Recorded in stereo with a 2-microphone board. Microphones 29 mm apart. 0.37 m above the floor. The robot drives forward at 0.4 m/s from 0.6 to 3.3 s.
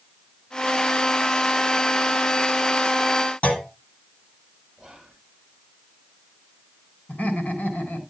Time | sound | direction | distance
3.4 | a clunk | 45° left (ahead or behind) | 2.5 m
4.8 | whispering | 10° right (ahead or behind) | 3 m
7.1 | laughter | 55° left (ahead or behind) | 4 m